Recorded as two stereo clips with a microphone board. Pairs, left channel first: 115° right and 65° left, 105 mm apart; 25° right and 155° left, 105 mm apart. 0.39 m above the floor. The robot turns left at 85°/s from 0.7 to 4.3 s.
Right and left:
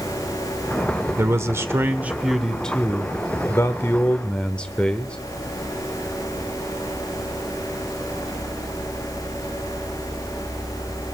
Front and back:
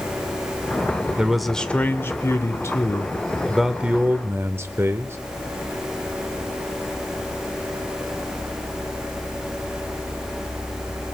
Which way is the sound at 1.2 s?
85° left.